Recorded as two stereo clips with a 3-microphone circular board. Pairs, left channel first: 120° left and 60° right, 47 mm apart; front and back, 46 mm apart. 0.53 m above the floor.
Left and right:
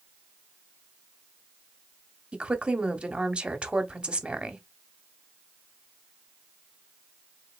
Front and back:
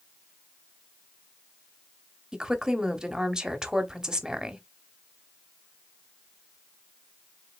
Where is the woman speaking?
115° right, 0.9 m.